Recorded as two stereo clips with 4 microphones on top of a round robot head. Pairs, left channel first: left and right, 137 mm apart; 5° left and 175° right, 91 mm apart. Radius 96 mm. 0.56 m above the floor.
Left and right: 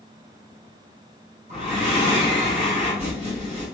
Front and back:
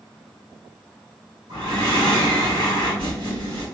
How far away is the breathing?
About 1.7 m.